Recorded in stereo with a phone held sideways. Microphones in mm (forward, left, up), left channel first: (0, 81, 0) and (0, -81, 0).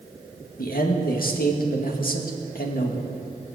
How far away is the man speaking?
About 1.8 m.